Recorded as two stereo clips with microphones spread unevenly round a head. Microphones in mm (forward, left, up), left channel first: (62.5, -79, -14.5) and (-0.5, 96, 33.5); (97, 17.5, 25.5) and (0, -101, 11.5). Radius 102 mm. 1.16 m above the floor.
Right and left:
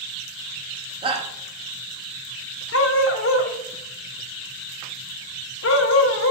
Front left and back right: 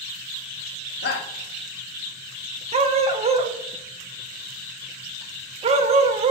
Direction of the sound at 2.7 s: 90° right.